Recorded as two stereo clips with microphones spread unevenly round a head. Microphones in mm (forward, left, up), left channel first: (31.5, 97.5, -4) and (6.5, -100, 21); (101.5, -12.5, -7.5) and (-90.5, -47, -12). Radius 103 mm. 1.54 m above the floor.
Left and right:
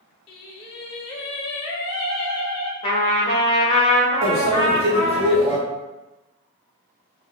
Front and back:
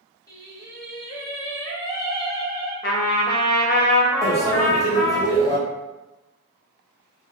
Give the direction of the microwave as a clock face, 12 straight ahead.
2 o'clock.